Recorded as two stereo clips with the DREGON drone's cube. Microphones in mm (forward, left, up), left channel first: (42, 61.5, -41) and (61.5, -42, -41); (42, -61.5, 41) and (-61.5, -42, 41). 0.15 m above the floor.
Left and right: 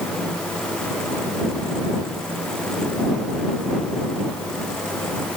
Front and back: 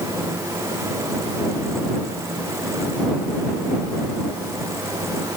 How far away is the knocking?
No knocking in this recording.